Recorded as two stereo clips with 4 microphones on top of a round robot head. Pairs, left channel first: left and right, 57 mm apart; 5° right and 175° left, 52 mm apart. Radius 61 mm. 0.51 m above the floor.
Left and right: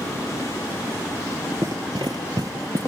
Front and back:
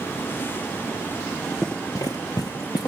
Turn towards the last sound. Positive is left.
turn(degrees=-40)